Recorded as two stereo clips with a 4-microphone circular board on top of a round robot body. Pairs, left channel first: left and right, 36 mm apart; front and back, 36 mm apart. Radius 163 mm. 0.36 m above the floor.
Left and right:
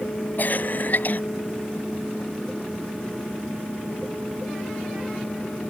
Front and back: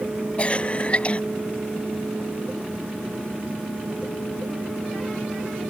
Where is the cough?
55° left.